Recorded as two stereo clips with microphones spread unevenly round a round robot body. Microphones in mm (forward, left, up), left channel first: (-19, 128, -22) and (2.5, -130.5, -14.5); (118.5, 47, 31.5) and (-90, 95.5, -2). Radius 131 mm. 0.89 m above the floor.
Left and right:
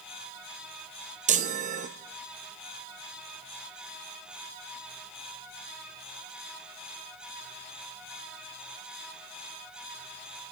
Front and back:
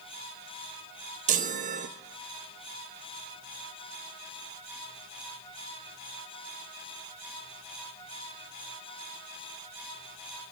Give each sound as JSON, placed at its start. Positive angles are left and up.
{"t": 1.3, "sound": "a chime", "azimuth_deg": -145, "distance_m": 0.6}